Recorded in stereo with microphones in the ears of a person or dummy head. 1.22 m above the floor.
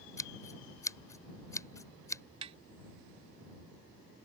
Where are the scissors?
15° left (ahead or behind).